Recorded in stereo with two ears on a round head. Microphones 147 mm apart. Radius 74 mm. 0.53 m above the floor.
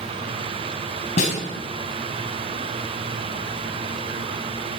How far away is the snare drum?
About 4.5 m.